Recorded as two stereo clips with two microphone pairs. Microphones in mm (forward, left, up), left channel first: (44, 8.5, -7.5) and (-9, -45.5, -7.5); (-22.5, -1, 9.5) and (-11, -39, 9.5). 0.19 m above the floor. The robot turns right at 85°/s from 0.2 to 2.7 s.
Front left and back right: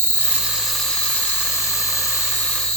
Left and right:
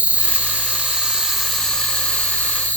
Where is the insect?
90° right, 1.8 m; by 2.8 s 120° left, 1.8 m.